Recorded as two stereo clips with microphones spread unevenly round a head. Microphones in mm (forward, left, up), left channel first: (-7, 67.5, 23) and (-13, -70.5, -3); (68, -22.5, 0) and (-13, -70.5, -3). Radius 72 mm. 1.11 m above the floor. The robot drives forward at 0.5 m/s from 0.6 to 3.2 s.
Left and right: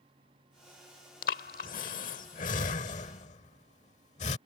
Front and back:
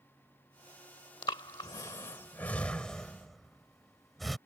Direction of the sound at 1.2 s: 85° left.